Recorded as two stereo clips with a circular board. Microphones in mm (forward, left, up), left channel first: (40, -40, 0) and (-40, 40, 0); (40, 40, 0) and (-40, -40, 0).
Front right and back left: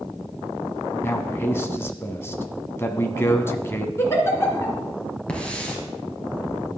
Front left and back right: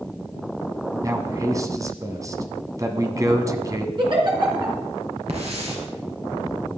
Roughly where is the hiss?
Behind right.